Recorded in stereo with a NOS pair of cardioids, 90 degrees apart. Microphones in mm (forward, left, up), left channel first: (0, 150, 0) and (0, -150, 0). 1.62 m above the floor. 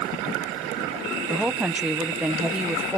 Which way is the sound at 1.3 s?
5° right.